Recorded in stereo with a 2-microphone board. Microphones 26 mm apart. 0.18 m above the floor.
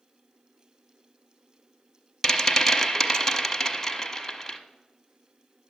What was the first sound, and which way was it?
A rattle, 15° left (ahead or behind).